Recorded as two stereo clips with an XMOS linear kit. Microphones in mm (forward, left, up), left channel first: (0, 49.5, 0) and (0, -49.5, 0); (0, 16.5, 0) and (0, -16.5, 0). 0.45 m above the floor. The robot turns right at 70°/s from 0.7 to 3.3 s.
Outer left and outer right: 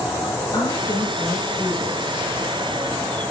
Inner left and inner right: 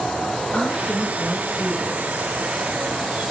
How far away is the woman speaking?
About 7.5 m.